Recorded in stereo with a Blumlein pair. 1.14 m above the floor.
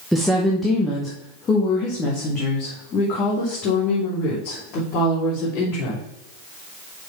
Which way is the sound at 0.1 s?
Straight ahead.